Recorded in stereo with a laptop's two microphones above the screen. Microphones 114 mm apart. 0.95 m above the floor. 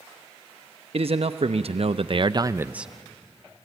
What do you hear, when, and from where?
0.9 s a man speaking: 60° right (ahead or behind), 1.1 m; by 2.9 s 5° right (ahead or behind), 0.5 m